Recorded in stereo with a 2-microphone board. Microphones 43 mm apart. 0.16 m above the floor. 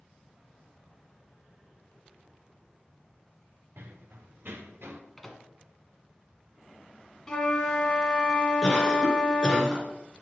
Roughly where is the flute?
Centre.